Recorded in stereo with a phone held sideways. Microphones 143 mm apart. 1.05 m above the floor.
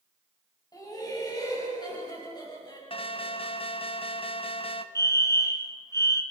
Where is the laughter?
30° left (ahead or behind), 7 m.